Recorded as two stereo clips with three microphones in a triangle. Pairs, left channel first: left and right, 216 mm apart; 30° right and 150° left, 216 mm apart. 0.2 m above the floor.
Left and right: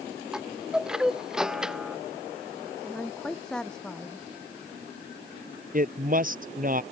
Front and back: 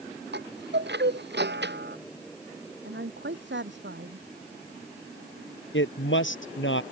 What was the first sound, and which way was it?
A chime, 175° right.